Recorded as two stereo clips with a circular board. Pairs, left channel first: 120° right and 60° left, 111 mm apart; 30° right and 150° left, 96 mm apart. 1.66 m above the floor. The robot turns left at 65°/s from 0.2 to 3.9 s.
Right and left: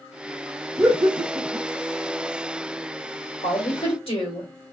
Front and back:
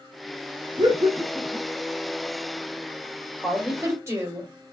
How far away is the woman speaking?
About 1.4 m.